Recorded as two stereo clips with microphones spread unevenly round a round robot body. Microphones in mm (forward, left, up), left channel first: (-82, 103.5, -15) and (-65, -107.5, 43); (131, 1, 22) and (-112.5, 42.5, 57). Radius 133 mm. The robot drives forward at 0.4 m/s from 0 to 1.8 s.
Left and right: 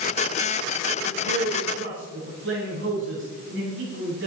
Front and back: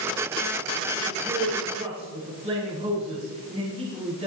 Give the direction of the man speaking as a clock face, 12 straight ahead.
4 o'clock.